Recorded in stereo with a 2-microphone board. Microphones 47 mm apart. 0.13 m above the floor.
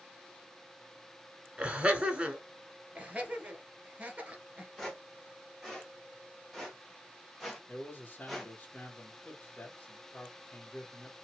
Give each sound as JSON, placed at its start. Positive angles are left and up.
{"t": 1.6, "sound": "laughter", "side_deg": -25, "distance_m": 1.4}
{"t": 3.0, "sound": "laughter", "side_deg": -25, "distance_m": 2.5}
{"t": 4.8, "sound": "footsteps", "side_deg": 0, "distance_m": 3.0}
{"t": 7.7, "sound": "a man speaking", "side_deg": 25, "distance_m": 1.9}